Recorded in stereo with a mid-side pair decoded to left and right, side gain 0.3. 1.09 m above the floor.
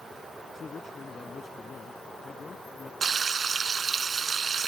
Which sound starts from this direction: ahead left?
A man speaking, at 0.5 s.